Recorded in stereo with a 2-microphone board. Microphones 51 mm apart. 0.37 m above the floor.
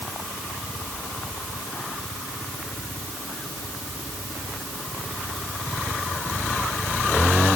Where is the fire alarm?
I don't hear a fire alarm.